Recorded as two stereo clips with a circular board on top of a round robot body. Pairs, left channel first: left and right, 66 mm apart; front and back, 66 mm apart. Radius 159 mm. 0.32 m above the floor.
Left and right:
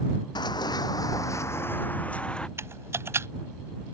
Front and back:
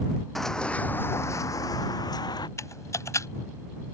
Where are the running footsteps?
85° left; by 2.5 s 10° left.